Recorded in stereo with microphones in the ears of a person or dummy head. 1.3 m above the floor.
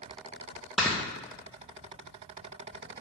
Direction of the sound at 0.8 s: Centre (ahead or behind).